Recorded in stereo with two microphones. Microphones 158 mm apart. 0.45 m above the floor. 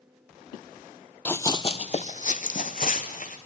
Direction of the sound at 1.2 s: 10° left (ahead or behind).